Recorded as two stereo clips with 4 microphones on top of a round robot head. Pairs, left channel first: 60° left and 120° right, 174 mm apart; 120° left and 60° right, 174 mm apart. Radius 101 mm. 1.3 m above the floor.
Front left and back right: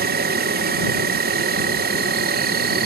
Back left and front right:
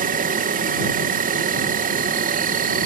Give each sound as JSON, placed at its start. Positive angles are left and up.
{"t": 0.0, "sound": "an insect", "azimuth_deg": -95}